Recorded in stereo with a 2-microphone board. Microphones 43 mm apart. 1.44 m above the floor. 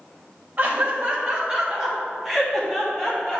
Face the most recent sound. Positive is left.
turn(degrees=15)  # may be behind; listen again after turning